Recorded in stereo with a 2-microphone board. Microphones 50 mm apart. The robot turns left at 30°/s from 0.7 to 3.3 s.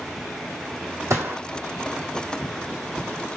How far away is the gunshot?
About 2 m.